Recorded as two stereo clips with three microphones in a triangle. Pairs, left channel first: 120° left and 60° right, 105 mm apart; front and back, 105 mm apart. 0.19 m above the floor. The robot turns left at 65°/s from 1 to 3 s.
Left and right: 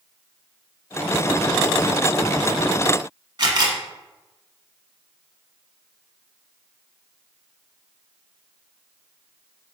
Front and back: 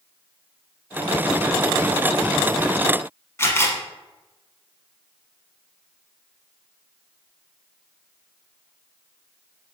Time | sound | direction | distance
3.4 | a camera shutter | 55° right | 0.7 m